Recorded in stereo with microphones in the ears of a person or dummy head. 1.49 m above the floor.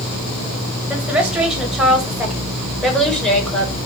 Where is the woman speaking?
5° right (ahead or behind), 8.5 m; by 3.7 s 5° left (ahead or behind), 6 m.